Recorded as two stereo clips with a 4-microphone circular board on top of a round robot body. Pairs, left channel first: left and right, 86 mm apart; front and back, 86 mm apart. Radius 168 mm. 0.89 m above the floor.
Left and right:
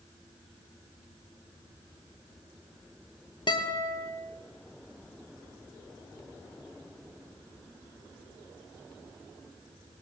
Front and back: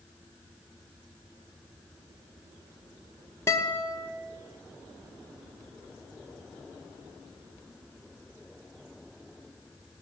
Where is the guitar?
60° left, 1.8 m.